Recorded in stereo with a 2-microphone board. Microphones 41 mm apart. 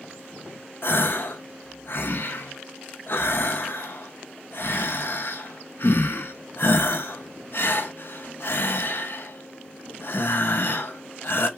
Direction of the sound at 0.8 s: 60° left (ahead or behind).